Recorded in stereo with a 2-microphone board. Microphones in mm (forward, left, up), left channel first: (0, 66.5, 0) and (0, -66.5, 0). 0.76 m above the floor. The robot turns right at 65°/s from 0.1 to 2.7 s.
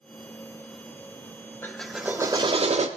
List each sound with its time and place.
1.6 s a drill: 165° left, 0.6 m; by 2.9 s 125° right, 0.6 m